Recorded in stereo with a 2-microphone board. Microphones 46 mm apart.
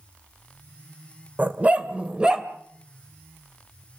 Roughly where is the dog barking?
Right.